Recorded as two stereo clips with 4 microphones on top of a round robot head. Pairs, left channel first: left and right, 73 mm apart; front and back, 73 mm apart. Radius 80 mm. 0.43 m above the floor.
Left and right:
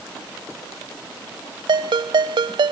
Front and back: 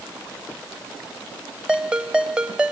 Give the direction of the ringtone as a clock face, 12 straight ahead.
3 o'clock.